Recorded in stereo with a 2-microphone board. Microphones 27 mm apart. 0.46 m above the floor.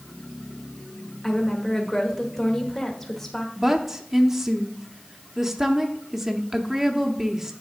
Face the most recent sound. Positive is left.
turn(degrees=-10)  # may be behind; listen again after turning